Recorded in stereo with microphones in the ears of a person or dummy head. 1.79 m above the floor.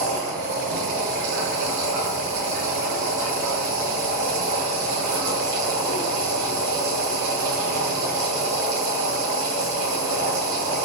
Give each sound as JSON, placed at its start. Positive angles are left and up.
{"t": 0.0, "sound": "a machine running", "side_deg": -70, "distance_m": 1.9}